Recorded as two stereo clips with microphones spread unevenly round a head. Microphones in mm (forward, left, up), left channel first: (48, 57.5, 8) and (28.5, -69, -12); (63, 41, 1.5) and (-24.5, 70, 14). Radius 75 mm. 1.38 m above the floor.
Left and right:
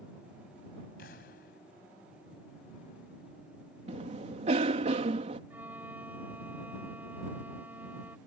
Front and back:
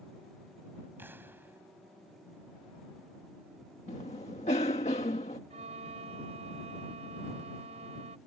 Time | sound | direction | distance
1.0 | an explosion | 95° left | ?
3.9 | a cough | 60° right | ?
5.5 | a violin | straight behind | ?